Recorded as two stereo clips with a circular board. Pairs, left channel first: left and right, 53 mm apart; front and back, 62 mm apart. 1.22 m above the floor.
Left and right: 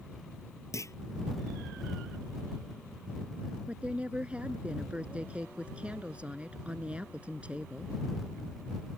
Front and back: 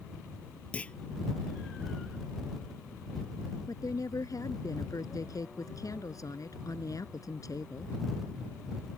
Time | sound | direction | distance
0.7 | a clunk | 75° left | ?
3.7 | a woman speaking | 20° right | ?